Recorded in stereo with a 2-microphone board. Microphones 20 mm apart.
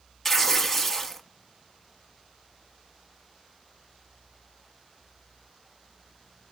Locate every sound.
0.2 s tearing paper: 10° left (ahead or behind), 0.7 m